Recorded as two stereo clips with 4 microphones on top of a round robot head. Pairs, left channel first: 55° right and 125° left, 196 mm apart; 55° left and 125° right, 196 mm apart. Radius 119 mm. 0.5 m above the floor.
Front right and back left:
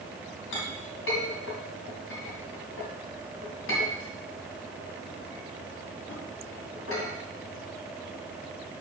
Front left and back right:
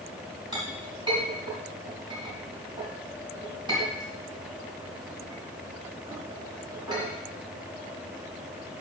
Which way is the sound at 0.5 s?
60° right.